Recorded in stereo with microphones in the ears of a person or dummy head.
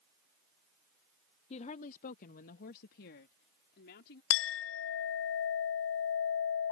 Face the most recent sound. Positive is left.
turn(degrees=70)  # may be behind; listen again after turning